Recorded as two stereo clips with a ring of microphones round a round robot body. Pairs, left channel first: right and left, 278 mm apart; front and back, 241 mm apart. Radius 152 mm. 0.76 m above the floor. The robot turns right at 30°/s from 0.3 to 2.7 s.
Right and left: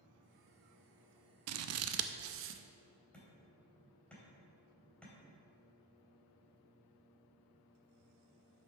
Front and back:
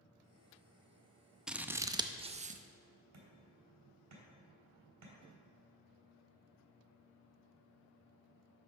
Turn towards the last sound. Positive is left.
turn(degrees=-175)